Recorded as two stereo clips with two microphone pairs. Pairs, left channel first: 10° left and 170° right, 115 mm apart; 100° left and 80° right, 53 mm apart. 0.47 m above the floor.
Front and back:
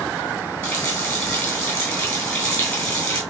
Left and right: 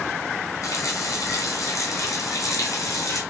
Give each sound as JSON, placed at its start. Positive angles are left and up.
{"t": 0.6, "sound": "a running tap", "azimuth_deg": 80, "distance_m": 2.5}